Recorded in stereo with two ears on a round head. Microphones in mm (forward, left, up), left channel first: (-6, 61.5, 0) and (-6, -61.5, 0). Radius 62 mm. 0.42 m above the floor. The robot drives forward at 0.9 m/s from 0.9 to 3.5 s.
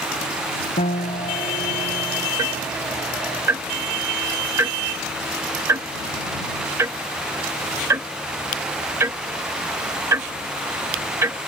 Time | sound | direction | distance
0.8 | a piano | 55° left (ahead or behind) | ?
2.4 | ticking | 25° right (ahead or behind) | ?